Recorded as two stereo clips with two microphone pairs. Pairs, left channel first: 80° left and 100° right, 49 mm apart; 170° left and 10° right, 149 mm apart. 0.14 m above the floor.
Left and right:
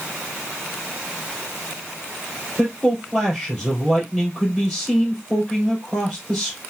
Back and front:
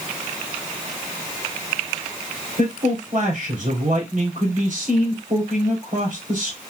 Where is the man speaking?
15° right, 3 m.